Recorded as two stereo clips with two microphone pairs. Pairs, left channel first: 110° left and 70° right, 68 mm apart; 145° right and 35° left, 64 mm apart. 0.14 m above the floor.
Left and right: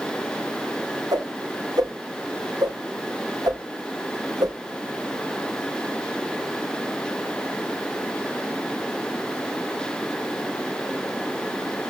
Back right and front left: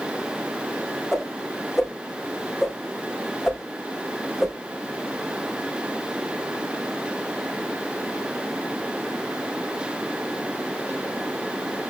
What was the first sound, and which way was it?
A whoosh, 50° right.